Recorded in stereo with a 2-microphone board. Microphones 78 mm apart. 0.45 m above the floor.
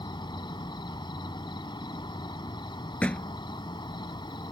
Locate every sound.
0.0 s an insect: 80° left
3.0 s a thud: 15° left (ahead or behind)